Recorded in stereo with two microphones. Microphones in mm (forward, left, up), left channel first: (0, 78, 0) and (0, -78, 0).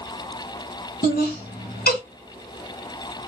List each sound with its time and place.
1.0 s laughter: 75° left (ahead or behind), 1.4 m